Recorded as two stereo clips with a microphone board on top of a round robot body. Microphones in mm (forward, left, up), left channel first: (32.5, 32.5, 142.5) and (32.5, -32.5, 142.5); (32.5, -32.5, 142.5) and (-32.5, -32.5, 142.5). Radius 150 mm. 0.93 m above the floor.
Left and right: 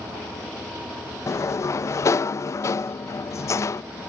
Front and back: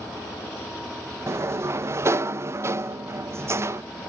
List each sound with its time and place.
1.3 s a sliding door: 135° left, 0.5 m